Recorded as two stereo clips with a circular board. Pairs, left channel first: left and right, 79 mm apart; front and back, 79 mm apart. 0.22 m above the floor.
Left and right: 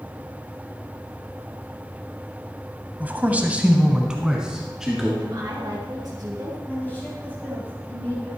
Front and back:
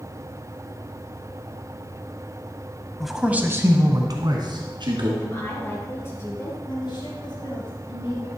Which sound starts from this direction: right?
A man speaking, at 3.0 s.